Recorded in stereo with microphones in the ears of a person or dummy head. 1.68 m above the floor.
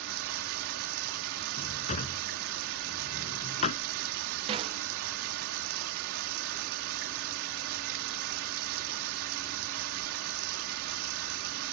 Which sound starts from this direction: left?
A drawer, at 1.6 s.